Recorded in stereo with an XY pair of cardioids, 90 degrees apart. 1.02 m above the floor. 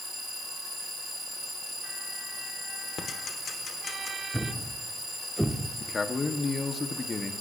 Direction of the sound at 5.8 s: 40° left.